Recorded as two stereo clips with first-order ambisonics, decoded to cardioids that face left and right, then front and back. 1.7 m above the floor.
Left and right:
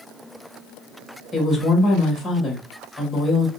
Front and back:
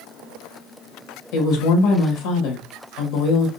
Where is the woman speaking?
10° left, 1.6 m.